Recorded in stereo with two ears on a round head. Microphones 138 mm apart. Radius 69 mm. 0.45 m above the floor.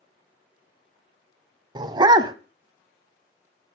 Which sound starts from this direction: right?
A dog barking, at 1.8 s.